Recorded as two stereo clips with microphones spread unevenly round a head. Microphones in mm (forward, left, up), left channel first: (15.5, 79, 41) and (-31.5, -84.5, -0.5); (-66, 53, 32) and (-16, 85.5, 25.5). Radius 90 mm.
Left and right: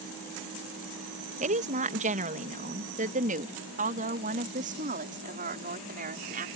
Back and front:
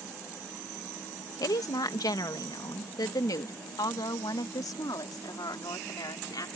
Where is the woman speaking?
155° right; by 6.5 s 150° right.